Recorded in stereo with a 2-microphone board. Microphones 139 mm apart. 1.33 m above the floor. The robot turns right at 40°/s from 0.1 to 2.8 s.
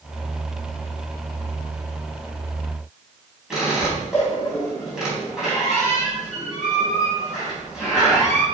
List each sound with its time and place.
3.5 s a squeak: 5° right (ahead or behind), 4.5 m